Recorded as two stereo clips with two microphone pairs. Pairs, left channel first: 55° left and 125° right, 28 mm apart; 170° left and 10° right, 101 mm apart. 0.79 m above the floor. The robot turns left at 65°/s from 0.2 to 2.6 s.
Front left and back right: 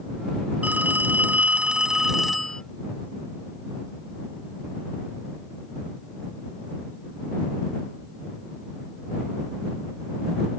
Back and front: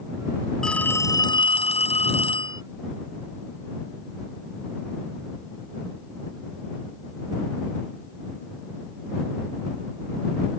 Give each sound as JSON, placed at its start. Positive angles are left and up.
{"t": 0.6, "sound": "a phone ringing", "azimuth_deg": -105}